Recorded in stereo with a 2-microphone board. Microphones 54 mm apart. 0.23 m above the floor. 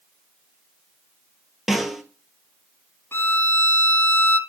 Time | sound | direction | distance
1.7 | a snare drum | 5° right (ahead or behind) | 1.0 m
3.1 | a violin | 50° left (ahead or behind) | 0.7 m